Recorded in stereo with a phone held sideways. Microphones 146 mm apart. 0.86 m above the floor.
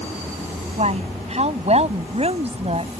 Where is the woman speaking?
50° right (ahead or behind); by 2.9 s 45° right (ahead or behind).